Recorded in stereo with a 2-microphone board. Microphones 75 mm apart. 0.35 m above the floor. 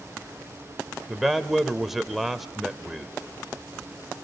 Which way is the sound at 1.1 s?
Centre (ahead or behind).